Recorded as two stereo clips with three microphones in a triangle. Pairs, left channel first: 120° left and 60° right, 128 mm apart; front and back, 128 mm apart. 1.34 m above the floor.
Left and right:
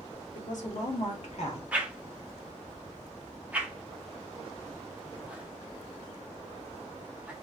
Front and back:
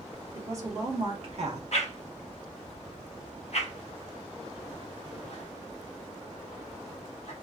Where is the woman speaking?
110° left, 1.2 m; by 1.6 s 155° left, 1.1 m.